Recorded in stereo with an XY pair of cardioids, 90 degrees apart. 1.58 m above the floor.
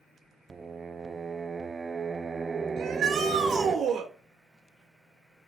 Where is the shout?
70° right, 3 m.